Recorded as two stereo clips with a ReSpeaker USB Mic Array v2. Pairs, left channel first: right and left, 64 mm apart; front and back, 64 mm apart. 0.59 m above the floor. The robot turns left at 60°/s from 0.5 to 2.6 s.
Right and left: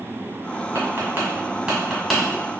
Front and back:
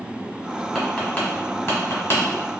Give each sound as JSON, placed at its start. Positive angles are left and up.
{"t": 0.8, "sound": "tapping", "azimuth_deg": 85, "distance_m": 1.3}